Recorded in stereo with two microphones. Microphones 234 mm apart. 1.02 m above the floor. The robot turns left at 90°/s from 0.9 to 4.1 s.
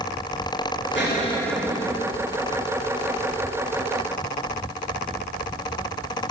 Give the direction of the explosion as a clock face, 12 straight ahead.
10 o'clock.